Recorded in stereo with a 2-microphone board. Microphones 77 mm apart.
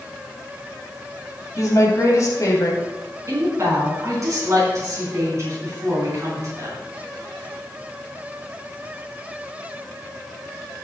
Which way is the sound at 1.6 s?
45° left (ahead or behind).